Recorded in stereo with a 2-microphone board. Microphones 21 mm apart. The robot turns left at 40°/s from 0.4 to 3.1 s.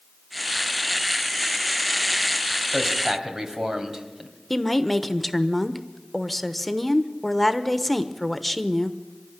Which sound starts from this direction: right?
A man speaking, at 2.7 s.